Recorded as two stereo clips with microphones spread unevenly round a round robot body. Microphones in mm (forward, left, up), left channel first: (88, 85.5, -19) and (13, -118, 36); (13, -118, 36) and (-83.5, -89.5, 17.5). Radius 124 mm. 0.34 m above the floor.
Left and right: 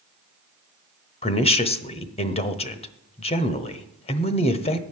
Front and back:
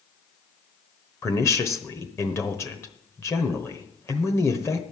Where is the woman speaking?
50° left, 1.0 m.